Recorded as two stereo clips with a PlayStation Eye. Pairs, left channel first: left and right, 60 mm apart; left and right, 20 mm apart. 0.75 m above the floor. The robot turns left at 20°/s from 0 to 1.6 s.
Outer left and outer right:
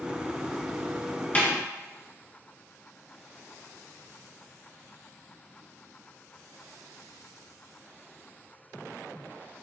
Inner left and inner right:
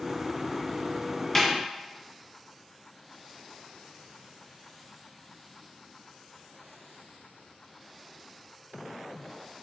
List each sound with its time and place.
1.4 s a snare drum: 25° left (ahead or behind), 0.8 m; by 1.5 s 20° left (ahead or behind), 0.8 m